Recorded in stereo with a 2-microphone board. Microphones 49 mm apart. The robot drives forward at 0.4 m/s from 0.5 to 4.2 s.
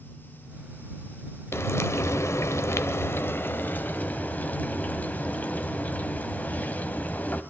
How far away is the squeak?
I don't hear a squeak.